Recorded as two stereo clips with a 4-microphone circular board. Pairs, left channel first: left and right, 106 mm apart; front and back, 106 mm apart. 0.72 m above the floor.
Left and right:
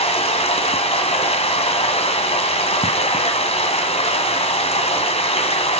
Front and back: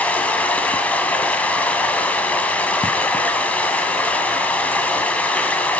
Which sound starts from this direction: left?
Running water, at 0.0 s.